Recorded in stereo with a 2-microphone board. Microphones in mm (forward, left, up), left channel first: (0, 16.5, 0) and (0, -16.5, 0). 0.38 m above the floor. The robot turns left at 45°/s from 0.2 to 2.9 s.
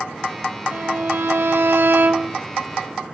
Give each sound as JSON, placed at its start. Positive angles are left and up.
{"t": 0.7, "sound": "a violin", "azimuth_deg": -60, "distance_m": 0.8}